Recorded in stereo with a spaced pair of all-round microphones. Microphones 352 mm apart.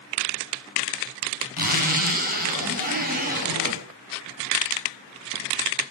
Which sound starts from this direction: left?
A zipper, at 1.6 s.